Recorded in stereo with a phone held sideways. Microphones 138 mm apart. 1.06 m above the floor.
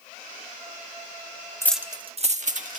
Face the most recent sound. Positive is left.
turn(degrees=-65)  # may be behind; listen again after turning